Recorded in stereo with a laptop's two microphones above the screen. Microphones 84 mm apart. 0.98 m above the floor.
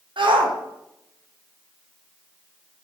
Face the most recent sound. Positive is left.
turn(degrees=-70)  # may be behind; listen again after turning